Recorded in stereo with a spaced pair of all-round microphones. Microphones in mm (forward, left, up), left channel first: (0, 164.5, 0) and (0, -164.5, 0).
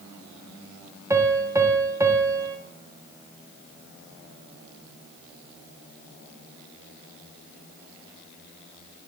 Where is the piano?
10° right (ahead or behind), 0.6 m.